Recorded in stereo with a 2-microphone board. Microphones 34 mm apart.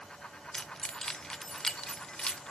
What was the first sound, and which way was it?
Keys jangling, 20° left (ahead or behind).